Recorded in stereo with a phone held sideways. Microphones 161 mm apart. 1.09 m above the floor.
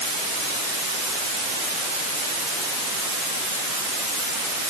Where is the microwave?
No microwave in this recording.